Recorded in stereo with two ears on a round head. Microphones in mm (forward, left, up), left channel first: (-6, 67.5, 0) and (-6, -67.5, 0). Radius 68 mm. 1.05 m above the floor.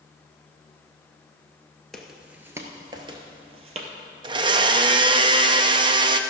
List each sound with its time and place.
1.9 s footsteps: 5° left (ahead or behind), 1.0 m; by 3.9 s 50° right (ahead or behind), 1.5 m
4.2 s a blender: 35° right (ahead or behind), 0.5 m